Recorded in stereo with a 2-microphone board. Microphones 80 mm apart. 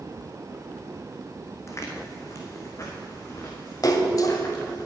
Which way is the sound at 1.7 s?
35° left (ahead or behind).